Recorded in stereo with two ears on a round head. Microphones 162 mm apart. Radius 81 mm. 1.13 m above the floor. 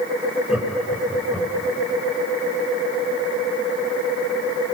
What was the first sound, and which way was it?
Laughter, 5° right (ahead or behind).